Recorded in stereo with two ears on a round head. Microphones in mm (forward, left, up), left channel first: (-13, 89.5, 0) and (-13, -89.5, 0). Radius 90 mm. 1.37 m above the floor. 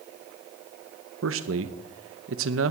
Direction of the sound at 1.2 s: 70° right (ahead or behind).